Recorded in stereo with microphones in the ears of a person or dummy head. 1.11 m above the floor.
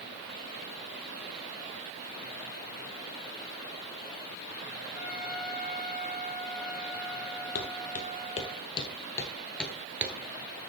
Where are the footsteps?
50° left (ahead or behind), 1.8 m; by 10.7 s 25° right (ahead or behind), 1.2 m.